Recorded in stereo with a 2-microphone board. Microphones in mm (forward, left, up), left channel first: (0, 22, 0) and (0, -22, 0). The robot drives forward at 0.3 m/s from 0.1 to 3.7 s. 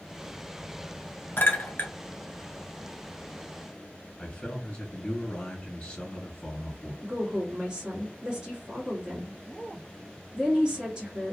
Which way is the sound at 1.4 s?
45° left (ahead or behind).